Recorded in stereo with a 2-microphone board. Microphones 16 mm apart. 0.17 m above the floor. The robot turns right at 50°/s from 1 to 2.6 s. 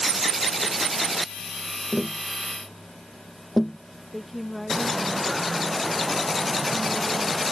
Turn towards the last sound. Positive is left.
turn(degrees=5)  # may be behind; listen again after turning